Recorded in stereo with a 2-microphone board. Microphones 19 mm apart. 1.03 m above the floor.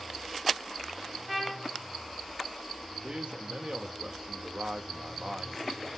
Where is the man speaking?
70° right (ahead or behind), 1.5 m.